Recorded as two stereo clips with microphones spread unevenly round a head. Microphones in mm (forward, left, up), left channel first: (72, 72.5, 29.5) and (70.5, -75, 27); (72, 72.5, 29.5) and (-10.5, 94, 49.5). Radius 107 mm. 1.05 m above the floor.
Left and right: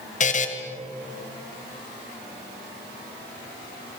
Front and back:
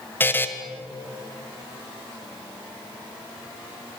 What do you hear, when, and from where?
0.2 s a buzzer: 55° left, 2.5 m